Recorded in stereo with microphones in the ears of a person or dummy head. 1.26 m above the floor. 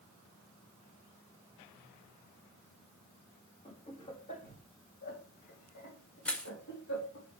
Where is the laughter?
25° left (ahead or behind), 3 m; by 7.2 s 70° left (ahead or behind), 3.5 m.